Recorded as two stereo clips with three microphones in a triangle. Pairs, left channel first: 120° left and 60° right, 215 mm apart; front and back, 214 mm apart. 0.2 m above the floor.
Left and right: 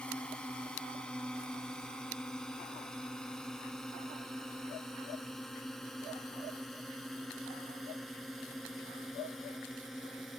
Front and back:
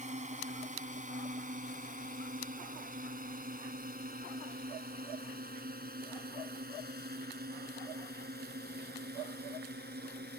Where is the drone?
160° right; by 10.4 s 150° right.